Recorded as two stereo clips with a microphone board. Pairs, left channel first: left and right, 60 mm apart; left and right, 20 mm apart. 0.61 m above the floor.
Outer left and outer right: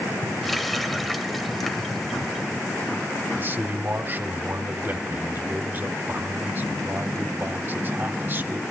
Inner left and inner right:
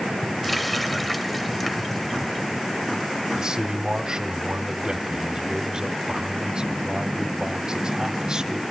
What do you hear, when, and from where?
0.4 s a running tap: 5° left (ahead or behind), 1.5 m
3.4 s a man speaking: 35° right (ahead or behind), 1.4 m